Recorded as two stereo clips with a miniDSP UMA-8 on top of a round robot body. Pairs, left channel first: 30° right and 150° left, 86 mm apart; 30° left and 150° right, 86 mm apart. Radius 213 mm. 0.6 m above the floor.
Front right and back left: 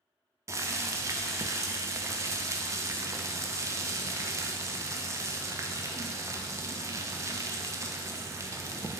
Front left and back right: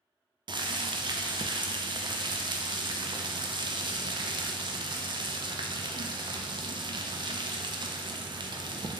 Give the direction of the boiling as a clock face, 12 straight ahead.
5 o'clock.